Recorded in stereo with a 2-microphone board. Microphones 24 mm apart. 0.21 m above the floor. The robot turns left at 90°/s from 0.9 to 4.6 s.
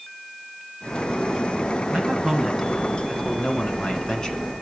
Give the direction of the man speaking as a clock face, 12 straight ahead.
4 o'clock.